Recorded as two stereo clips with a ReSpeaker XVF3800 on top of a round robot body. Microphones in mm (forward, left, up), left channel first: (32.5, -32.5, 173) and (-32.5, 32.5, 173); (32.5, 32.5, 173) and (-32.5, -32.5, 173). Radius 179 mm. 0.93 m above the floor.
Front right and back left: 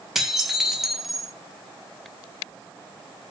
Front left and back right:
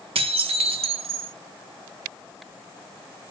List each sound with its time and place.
0.1 s dishes clattering: 140° right, 0.7 m